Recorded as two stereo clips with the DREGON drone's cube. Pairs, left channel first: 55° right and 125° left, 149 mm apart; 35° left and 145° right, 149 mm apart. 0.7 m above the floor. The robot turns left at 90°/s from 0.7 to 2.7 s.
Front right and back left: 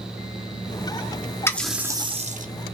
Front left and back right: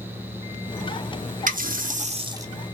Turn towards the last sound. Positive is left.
turn(degrees=120)